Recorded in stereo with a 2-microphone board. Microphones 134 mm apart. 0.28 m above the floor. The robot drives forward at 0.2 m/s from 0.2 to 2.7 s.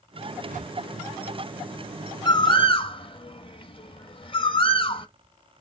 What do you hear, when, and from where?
0.5 s a whoosh: 80° right, 0.6 m; by 0.8 s 75° right (ahead or behind), 0.6 m
2.2 s a bird: 35° left (ahead or behind), 0.6 m; by 5.1 s 40° left (ahead or behind), 0.5 m